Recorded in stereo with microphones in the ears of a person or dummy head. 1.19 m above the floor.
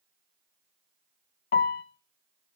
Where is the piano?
45° left (ahead or behind), 0.8 m.